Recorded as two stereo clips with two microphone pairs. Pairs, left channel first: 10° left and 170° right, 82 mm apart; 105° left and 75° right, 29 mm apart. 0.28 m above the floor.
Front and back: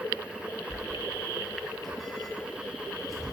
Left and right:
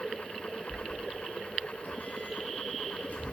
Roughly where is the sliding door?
Left.